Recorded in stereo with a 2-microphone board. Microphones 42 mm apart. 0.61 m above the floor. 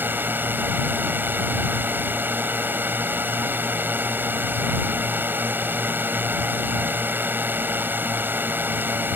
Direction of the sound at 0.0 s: 55° right (ahead or behind).